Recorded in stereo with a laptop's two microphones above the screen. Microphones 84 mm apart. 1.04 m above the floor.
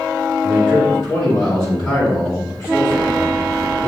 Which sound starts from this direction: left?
A man speaking, at 0.4 s.